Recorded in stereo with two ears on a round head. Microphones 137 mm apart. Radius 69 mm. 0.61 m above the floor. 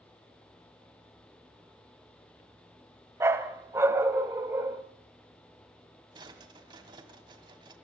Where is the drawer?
30° right (ahead or behind), 1.9 m.